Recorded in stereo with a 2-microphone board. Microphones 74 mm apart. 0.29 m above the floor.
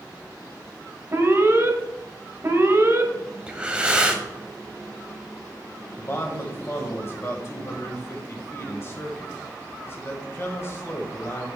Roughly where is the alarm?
Right.